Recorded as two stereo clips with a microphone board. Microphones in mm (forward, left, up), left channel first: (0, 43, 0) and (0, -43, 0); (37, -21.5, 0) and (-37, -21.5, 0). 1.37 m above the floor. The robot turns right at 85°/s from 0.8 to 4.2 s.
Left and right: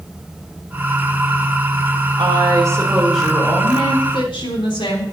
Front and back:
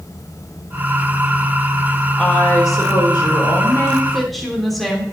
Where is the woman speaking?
80° right, 3 m; by 5.0 s 90° left, 3 m.